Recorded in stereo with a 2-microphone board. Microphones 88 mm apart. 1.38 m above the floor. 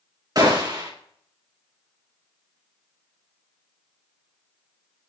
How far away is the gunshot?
About 2 m.